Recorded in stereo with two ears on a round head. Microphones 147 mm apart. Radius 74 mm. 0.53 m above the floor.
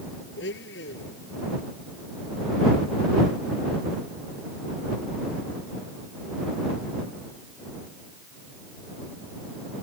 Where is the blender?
85° left.